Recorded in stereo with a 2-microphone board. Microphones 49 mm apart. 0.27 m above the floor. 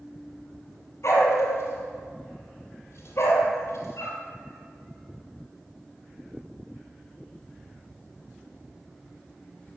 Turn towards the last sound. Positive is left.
turn(degrees=60)  # may be behind; listen again after turning